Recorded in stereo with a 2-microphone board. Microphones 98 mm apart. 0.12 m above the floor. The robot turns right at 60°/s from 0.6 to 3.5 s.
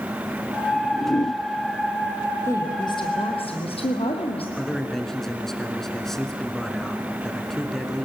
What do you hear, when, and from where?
0.7 s a whoosh: 20° left (ahead or behind), 0.6 m; by 1.4 s 55° left (ahead or behind), 0.6 m
2.5 s a woman speaking: 25° left, 3.5 m; by 4.5 s 90° left, 3.5 m
4.6 s a man speaking: 5° left (ahead or behind), 1.6 m